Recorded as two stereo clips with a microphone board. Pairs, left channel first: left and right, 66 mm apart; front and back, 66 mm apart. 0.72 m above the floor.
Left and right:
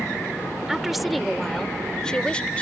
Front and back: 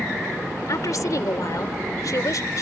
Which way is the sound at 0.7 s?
5° right.